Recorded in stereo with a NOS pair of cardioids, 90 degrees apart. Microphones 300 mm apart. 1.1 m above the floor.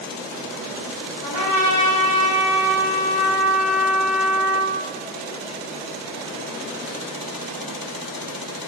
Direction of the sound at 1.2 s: 45° right.